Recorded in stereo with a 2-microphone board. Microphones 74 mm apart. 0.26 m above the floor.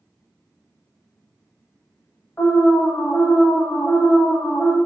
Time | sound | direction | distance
2.4 | an alarm | 30° left (ahead or behind) | 0.8 m